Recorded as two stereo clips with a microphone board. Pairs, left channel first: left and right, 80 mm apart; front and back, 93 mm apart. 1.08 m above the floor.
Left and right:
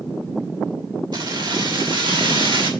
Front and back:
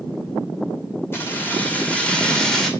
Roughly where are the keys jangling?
Ahead right.